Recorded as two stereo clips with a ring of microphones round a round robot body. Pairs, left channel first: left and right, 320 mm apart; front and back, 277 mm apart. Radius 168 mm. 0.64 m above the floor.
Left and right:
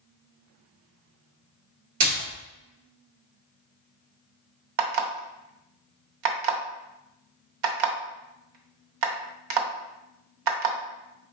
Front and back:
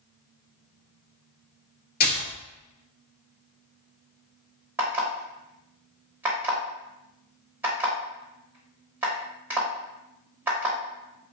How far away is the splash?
About 1.8 m.